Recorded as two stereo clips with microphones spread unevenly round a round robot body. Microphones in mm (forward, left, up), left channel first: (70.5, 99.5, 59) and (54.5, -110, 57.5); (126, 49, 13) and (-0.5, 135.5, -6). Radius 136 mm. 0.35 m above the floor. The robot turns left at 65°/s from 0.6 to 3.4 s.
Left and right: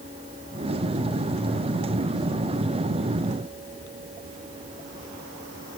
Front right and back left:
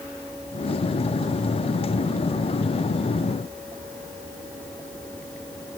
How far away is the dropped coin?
I don't hear a dropped coin.